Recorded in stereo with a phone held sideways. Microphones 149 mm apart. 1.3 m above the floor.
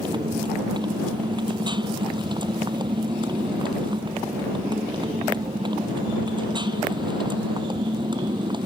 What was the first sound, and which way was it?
A motorcycle, 30° right (ahead or behind).